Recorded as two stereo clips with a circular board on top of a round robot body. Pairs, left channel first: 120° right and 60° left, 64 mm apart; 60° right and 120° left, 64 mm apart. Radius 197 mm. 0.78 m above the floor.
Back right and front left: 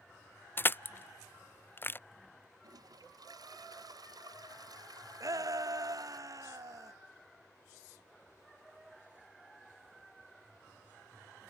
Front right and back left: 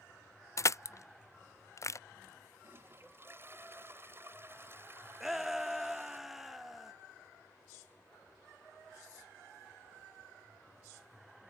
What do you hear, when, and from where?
0.6 s crushing: 75° right
2.6 s a toilet flushing: 65° left
5.2 s a shout: 35° left